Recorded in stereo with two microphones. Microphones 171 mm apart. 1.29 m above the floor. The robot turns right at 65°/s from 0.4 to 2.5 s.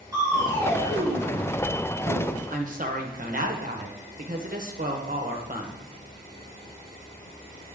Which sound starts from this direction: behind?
Crushing, at 0.1 s.